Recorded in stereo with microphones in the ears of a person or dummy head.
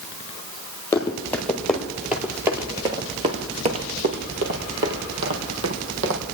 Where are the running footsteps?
15° left (ahead or behind), 2 m; by 6.2 s 65° right (ahead or behind), 3 m.